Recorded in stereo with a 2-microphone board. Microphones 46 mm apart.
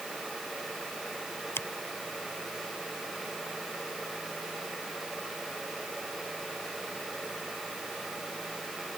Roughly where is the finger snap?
Left.